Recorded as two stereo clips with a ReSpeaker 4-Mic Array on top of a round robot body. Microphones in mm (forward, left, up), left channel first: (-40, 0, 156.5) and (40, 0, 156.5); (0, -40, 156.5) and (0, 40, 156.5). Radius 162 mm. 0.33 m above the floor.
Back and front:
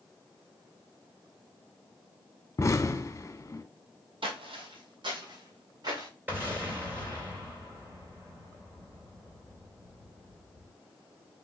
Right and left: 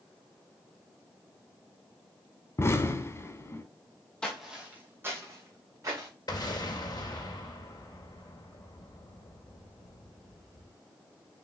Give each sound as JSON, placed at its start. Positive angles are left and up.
{"t": 2.6, "sound": "an explosion", "azimuth_deg": -135, "distance_m": 1.0}
{"t": 4.2, "sound": "footsteps", "azimuth_deg": -10, "distance_m": 0.8}
{"t": 6.3, "sound": "an explosion", "azimuth_deg": -60, "distance_m": 3.0}